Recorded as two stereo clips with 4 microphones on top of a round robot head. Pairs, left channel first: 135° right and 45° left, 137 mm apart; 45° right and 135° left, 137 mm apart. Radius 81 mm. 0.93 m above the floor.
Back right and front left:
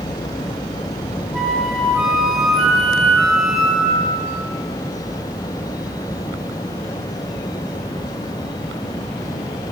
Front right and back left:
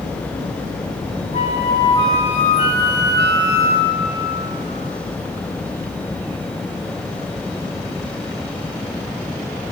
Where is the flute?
45° right, 0.7 m.